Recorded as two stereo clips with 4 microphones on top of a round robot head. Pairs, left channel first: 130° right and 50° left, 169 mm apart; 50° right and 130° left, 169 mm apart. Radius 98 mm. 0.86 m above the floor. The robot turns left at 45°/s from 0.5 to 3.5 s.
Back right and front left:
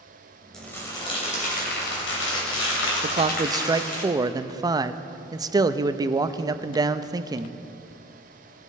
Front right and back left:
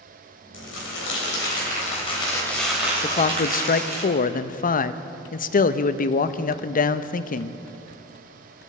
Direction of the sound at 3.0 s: 5° left.